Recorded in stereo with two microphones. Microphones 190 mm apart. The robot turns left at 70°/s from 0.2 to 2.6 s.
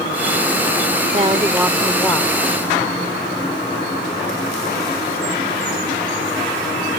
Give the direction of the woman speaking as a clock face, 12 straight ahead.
4 o'clock.